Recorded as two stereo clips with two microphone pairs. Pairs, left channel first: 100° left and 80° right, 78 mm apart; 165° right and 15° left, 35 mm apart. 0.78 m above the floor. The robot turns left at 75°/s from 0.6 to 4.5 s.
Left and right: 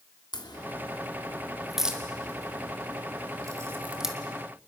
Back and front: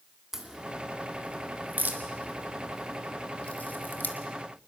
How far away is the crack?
About 1.9 m.